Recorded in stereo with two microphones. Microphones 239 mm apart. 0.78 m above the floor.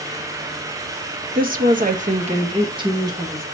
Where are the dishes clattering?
I don't hear dishes clattering.